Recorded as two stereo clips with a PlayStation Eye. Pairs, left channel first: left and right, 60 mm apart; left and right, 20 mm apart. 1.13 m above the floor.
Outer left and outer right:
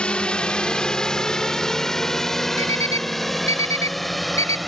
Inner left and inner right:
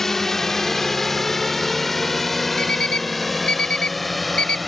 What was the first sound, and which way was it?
A drone, 20° left (ahead or behind).